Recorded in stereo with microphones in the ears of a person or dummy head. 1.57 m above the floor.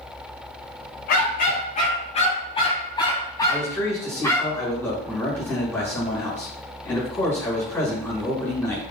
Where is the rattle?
No rattle in this recording.